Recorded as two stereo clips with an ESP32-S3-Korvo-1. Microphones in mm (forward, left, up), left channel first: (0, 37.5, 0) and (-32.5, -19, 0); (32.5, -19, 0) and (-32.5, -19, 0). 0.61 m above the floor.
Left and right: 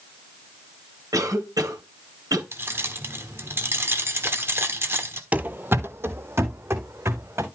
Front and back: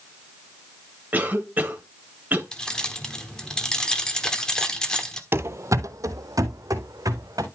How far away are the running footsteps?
About 0.7 m.